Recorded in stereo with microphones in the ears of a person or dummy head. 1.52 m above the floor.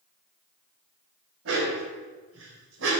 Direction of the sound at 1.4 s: 70° right (ahead or behind).